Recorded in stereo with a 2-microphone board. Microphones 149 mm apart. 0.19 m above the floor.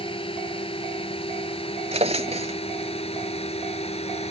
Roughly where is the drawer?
Right.